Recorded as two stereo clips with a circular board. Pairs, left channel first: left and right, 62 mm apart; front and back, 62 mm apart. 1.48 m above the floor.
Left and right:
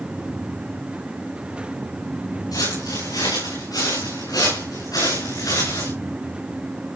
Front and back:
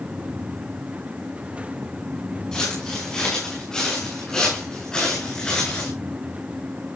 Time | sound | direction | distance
2.5 | footsteps | 80° left | 9 m